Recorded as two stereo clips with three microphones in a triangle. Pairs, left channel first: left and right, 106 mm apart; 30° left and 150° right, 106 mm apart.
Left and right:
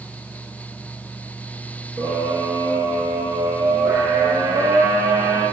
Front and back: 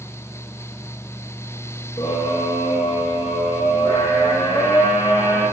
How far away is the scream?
About 6 m.